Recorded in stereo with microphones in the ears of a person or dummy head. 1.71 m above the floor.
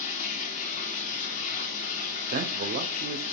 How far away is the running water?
About 1.0 m.